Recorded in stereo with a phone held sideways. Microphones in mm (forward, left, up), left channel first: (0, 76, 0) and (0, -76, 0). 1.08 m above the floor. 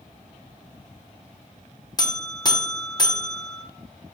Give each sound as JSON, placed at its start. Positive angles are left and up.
{"t": 2.0, "sound": "a buzzer", "side_deg": 30, "distance_m": 0.5}